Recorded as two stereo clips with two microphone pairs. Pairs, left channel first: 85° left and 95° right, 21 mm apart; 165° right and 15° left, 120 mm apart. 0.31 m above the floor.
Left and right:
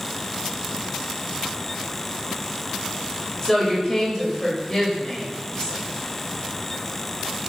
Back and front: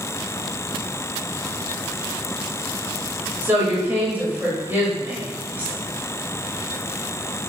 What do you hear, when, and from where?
3.4 s a woman speaking: 65° left, 0.9 m